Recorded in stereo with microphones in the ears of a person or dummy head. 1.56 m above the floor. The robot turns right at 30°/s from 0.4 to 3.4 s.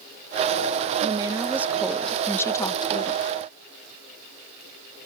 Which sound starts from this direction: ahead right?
A woman speaking, at 1.0 s.